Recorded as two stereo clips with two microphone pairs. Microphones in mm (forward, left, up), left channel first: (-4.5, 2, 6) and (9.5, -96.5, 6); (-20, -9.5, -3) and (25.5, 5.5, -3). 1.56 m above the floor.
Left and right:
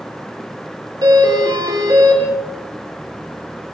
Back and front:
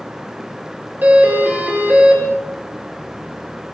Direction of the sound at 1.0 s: 35° right.